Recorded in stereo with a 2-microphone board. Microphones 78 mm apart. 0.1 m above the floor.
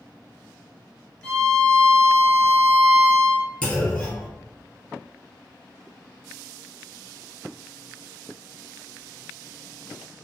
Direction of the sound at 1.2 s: 20° left (ahead or behind).